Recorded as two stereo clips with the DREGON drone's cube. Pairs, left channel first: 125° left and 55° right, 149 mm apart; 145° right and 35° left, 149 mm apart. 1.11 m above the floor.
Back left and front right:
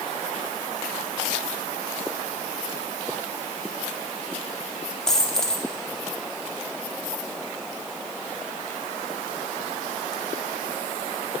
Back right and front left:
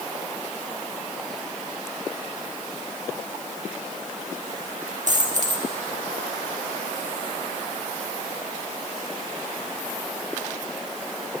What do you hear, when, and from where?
5.1 s a dropped coin: 40° left, 1.0 m